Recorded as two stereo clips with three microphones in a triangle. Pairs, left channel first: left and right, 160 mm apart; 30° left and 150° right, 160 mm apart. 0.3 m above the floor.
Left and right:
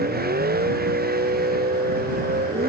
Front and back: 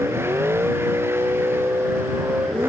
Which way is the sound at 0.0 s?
75° right.